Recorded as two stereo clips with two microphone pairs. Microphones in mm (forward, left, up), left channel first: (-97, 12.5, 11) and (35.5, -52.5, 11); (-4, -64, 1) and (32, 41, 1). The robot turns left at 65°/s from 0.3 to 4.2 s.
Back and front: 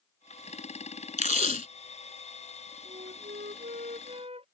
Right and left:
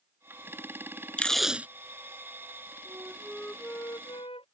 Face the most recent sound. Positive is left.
turn(degrees=-75)